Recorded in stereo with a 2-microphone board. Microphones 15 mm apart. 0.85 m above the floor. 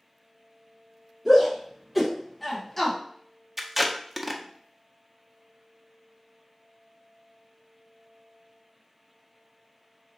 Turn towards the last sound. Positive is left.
turn(degrees=-10)  # may be behind; listen again after turning